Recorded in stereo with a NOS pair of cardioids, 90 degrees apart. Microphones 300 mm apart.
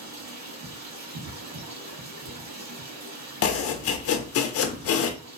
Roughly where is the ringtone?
No ringtone in this recording.